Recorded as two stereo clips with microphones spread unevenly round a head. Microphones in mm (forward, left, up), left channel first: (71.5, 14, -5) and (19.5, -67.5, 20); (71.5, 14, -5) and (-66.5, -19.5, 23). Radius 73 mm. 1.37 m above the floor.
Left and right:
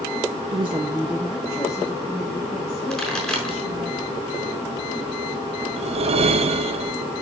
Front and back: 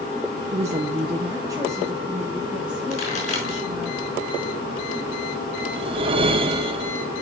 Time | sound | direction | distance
0.5 | a woman speaking | 125° right | 0.6 m
2.9 | a pop | 25° right | 4.5 m
5.8 | a whoosh | 110° right | 0.6 m